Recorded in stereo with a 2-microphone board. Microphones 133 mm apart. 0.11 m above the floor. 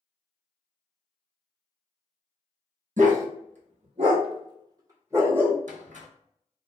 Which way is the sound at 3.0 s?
75° right (ahead or behind).